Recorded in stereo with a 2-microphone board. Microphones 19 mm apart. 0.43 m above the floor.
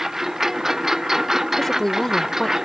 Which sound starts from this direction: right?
A lawn mower, at 0.0 s.